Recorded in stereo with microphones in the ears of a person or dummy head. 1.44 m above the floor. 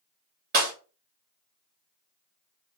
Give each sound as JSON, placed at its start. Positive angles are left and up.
{"t": 0.5, "sound": "breaking glass", "side_deg": -55, "distance_m": 1.6}